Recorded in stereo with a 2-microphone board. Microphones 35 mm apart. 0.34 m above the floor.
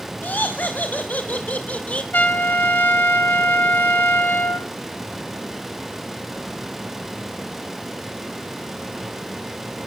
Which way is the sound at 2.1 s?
60° left (ahead or behind).